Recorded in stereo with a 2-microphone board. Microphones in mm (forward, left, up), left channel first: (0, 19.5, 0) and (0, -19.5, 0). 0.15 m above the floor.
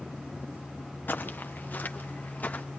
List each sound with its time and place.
1.1 s footsteps: 50° left (ahead or behind), 1.8 m; by 2.6 s 40° left (ahead or behind), 2.5 m